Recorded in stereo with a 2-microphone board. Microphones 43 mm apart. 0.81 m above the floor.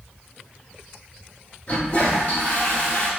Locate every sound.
1.7 s a toilet flushing: 30° left (ahead or behind), 1.9 m